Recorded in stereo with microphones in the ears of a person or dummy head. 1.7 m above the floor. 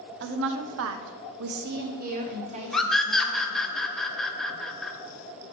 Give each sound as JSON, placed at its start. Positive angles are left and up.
{"t": 0.2, "sound": "a woman speaking", "side_deg": -60, "distance_m": 0.8}
{"t": 2.7, "sound": "a scream", "side_deg": 5, "distance_m": 0.7}